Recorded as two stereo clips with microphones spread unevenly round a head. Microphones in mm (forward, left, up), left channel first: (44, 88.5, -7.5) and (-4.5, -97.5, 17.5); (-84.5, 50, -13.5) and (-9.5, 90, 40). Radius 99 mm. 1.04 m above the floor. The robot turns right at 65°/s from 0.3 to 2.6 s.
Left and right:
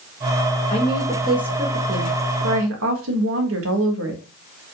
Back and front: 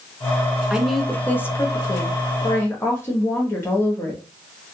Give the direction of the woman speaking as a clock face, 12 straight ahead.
8 o'clock.